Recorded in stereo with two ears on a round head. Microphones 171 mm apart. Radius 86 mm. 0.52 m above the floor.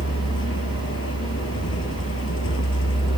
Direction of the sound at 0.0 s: 85° left.